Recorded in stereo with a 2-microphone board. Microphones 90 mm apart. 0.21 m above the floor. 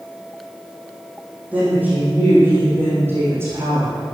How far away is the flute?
I don't hear a flute.